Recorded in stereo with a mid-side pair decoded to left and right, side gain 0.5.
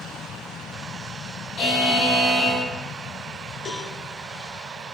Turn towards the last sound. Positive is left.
turn(degrees=55)